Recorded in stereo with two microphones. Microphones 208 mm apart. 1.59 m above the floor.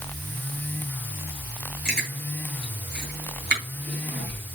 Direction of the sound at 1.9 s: 55° right (ahead or behind).